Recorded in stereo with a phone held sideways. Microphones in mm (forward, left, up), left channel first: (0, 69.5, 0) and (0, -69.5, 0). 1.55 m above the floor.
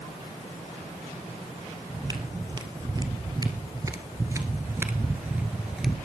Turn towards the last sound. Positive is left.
turn(degrees=-5)  # may be behind; listen again after turning